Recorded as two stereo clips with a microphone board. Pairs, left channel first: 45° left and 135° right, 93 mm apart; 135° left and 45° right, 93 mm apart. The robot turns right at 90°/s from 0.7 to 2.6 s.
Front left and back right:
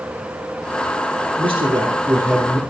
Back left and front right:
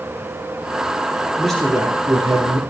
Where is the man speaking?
145° right, 3.5 m; by 2.6 s 35° right, 3.5 m.